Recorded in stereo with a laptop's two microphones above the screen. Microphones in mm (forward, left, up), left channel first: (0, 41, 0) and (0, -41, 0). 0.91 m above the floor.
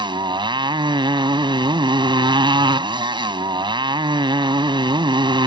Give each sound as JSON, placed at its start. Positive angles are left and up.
{"t": 0.0, "sound": "a motorcycle", "side_deg": -80}